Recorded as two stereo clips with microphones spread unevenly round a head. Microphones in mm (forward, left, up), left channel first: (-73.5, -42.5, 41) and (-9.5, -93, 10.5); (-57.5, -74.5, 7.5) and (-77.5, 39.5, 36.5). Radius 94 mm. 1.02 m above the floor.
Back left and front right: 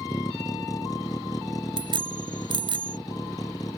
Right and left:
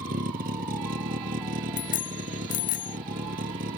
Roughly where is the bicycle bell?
Ahead right.